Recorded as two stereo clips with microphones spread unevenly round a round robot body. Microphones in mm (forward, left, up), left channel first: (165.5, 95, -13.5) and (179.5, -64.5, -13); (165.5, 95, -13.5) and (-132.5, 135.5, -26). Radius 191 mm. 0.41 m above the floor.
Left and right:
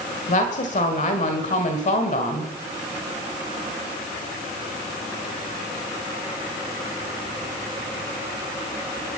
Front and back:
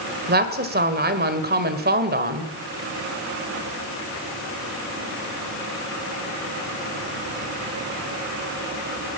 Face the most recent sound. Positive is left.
turn(degrees=125)